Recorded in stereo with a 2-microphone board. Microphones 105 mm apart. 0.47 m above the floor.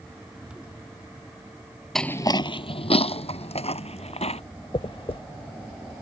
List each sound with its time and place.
1.9 s footsteps: centre (ahead or behind); by 4.4 s 80° left
4.7 s a dropped coin: 60° left (ahead or behind)